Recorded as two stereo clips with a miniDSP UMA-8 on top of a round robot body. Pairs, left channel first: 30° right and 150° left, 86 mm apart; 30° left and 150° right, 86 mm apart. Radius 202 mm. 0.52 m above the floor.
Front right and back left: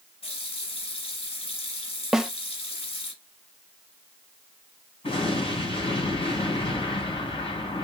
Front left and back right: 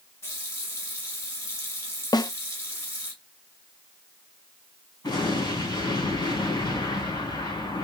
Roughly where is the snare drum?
Ahead left.